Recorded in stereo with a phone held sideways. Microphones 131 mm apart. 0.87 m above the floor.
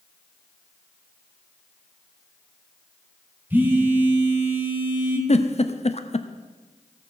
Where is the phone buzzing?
15° right (ahead or behind), 1.8 m.